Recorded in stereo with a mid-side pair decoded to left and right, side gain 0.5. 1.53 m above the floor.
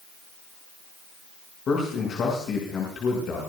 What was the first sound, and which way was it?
A man speaking, 50° left.